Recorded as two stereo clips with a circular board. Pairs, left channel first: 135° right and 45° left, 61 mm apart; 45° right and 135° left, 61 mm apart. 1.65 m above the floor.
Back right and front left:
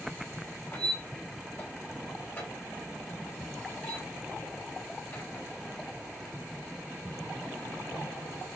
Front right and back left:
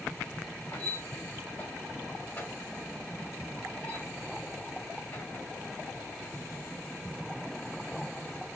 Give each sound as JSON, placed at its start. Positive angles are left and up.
{"t": 0.7, "sound": "a squeak", "azimuth_deg": -75, "distance_m": 1.7}